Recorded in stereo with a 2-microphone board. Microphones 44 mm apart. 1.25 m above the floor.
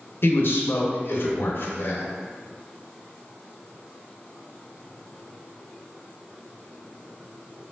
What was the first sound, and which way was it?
A man speaking, 60° left (ahead or behind).